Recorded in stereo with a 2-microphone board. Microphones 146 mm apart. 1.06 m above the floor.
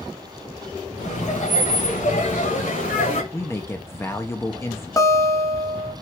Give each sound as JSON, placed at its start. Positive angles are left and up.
{"t": 1.0, "sound": "laughter", "side_deg": 55, "distance_m": 2.0}
{"t": 3.3, "sound": "a man speaking", "side_deg": 15, "distance_m": 0.5}
{"t": 5.0, "sound": "a guitar", "side_deg": 25, "distance_m": 1.0}